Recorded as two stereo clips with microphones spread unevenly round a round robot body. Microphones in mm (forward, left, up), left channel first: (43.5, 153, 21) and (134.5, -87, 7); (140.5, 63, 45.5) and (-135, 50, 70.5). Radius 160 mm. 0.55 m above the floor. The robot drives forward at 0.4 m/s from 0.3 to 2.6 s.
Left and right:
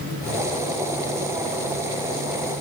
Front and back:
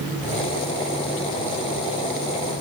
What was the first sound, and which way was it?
Only background noise.